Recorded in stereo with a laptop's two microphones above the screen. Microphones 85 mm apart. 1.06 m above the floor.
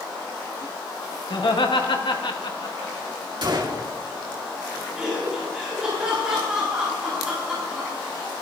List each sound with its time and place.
1.3 s laughter: 60° left (ahead or behind), 1.9 m; by 2.9 s 55° left (ahead or behind), 2.5 m
3.4 s a gunshot: 60° right (ahead or behind), 2.5 m
5.0 s laughter: 10° right (ahead or behind), 3.5 m